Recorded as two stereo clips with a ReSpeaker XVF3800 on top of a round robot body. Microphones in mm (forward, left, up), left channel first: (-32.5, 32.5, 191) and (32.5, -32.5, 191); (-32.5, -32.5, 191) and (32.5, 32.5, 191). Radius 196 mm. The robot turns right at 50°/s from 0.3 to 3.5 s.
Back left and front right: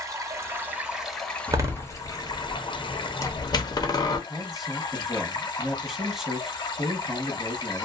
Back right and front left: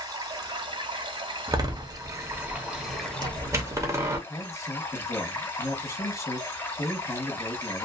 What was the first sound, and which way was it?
Running water, 5° left.